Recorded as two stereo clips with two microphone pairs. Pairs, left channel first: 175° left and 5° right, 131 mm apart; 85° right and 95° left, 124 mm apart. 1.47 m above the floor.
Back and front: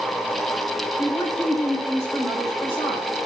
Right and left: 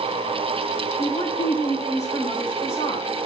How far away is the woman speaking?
About 5.5 m.